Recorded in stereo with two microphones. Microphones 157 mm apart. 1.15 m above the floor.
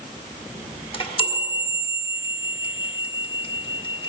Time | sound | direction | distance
0.9 | a chime | 35° left (ahead or behind) | 1.6 m